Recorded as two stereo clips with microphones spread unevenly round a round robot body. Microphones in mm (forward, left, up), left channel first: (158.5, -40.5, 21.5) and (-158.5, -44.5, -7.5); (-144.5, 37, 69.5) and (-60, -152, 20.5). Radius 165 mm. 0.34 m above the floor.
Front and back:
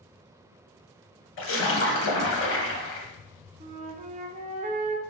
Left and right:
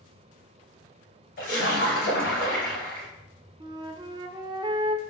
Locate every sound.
1.4 s a splash: 55° left, 0.6 m
3.6 s a flute: 120° right, 0.5 m